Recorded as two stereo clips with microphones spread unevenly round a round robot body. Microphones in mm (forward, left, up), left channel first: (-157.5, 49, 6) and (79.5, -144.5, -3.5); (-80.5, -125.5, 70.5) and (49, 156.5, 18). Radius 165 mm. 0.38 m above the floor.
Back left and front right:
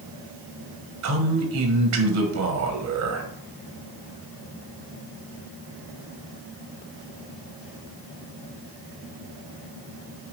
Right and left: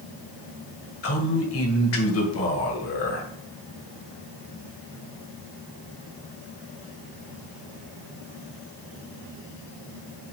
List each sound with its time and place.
1.0 s a man speaking: 65° right, 1.6 m